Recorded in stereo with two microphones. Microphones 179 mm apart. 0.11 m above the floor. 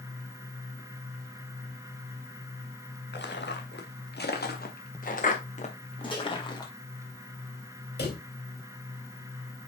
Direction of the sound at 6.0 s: 25° left (ahead or behind).